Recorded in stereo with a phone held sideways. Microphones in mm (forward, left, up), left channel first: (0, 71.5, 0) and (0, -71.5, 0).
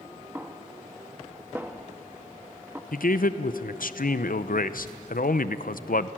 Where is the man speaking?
75° left (ahead or behind), 0.7 m.